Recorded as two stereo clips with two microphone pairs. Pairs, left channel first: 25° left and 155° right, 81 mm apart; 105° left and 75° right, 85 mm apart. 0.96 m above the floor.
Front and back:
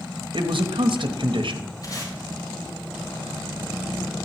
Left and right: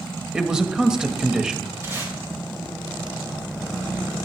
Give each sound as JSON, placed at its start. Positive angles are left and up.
{"t": 0.3, "sound": "a man speaking", "azimuth_deg": -155, "distance_m": 0.9}
{"t": 1.8, "sound": "tape being pulled", "azimuth_deg": -15, "distance_m": 3.0}